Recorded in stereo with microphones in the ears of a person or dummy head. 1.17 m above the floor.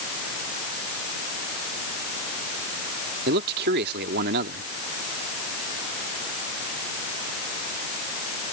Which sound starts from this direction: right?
A man speaking, at 3.3 s.